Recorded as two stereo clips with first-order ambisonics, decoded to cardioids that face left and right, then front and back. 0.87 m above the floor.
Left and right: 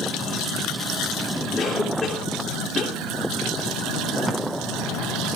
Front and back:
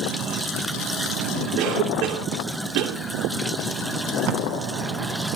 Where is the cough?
170° left, 3 m.